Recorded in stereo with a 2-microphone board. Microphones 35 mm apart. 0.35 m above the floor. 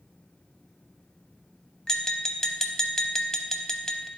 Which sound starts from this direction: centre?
Tapping, at 1.9 s.